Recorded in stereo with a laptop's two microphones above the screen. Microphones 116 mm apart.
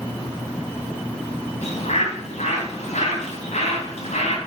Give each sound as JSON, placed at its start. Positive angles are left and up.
{"t": 1.6, "sound": "a bird", "side_deg": 75, "distance_m": 3.0}